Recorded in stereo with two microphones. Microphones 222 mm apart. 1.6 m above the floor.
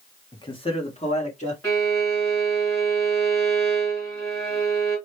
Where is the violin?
15° left (ahead or behind), 3.5 m.